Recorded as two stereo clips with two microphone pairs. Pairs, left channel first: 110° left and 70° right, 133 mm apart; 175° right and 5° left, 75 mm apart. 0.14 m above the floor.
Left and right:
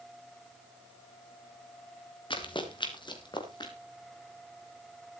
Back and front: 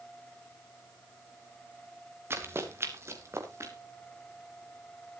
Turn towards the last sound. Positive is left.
turn(degrees=55)